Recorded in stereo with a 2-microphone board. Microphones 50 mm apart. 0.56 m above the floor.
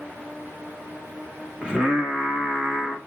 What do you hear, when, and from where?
1.6 s singing: 20° right (ahead or behind), 0.8 m